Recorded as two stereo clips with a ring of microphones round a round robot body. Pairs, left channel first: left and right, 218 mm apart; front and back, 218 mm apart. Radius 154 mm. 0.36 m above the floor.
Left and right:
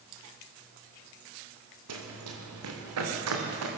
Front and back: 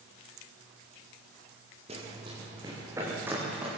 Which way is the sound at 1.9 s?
110° right.